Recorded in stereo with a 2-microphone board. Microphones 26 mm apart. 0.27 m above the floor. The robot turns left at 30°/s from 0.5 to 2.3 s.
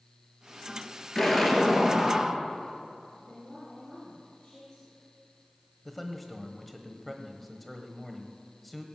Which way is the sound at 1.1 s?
15° left.